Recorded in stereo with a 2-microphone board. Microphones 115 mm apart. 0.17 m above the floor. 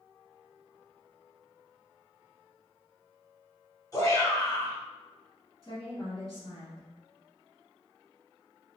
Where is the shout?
30° left (ahead or behind), 1.8 m.